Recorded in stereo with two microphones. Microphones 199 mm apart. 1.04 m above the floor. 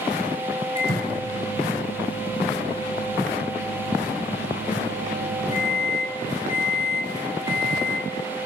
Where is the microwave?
40° left (ahead or behind), 5 m.